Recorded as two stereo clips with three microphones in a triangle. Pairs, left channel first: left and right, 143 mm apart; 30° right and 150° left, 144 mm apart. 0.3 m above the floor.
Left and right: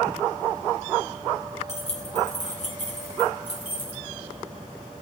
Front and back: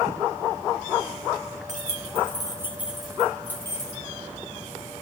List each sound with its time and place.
1.7 s keys jangling: 130° left, 1.9 m; by 4.0 s 35° left, 3 m